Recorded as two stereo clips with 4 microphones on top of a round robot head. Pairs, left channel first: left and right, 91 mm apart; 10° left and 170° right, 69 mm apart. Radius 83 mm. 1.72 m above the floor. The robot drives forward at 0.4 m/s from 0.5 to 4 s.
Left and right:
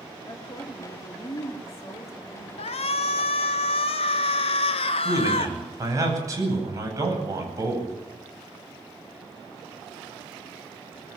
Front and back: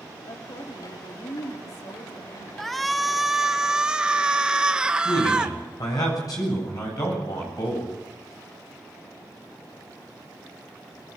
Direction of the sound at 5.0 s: 40° right.